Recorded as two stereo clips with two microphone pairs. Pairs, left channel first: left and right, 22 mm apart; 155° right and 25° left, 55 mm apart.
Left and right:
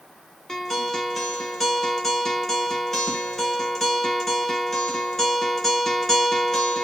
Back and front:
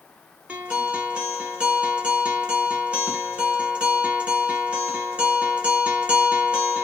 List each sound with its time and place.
0.5 s a guitar: 40° left, 1.0 m